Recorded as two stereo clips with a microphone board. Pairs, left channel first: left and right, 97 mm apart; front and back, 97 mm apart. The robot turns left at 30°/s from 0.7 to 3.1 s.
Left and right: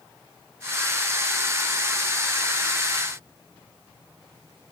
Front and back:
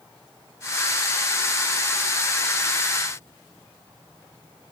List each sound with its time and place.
Only background noise.